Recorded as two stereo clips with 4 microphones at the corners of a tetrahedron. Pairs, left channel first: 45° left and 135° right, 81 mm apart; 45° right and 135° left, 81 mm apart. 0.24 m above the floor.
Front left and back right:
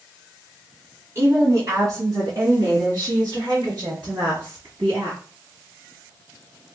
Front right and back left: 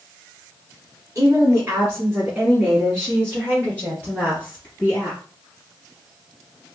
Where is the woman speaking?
Straight behind, 1.6 m; by 5.2 s 100° right, 3.5 m.